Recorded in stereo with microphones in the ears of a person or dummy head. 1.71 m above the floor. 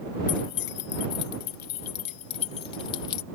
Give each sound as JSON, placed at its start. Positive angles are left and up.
{"t": 0.3, "sound": "keys jangling", "side_deg": 75}